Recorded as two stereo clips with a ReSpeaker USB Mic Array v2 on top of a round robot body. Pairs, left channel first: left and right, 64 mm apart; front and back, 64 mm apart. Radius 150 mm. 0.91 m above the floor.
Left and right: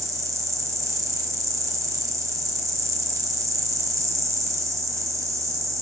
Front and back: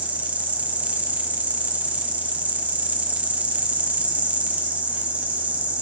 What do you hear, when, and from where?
0.0 s an insect: 115° right, 1.4 m